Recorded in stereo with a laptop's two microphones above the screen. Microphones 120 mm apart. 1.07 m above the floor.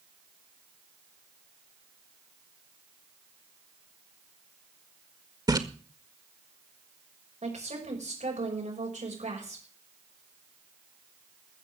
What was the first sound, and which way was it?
A splash, 30° right (ahead or behind).